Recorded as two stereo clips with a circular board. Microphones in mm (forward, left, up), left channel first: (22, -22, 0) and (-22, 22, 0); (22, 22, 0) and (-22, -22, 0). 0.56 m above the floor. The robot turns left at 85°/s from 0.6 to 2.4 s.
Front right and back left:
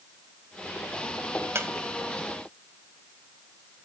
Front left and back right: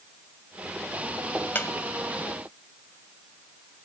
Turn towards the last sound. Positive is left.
turn(degrees=25)